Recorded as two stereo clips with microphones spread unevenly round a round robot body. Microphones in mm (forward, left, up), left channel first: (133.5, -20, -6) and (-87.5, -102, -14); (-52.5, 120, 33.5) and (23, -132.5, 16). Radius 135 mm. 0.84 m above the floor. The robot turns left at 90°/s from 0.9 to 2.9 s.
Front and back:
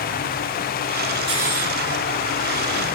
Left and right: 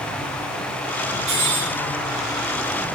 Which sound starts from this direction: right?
Cutlery clinking, at 1.3 s.